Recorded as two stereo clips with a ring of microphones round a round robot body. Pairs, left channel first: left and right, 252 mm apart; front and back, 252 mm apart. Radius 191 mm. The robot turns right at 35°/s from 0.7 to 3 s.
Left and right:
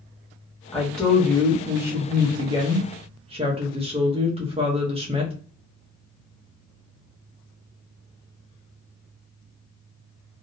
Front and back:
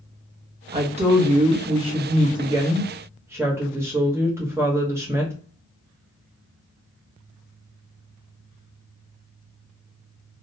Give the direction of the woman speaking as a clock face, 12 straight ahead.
7 o'clock.